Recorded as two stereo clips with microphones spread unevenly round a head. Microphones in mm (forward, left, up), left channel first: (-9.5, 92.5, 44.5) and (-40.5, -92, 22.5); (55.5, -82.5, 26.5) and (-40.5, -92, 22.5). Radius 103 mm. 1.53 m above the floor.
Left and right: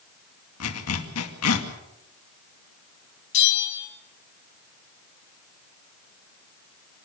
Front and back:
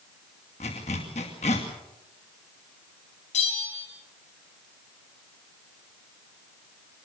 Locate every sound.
0.6 s a zipper: 60° left, 2.5 m
3.3 s a bell: 45° left, 4.5 m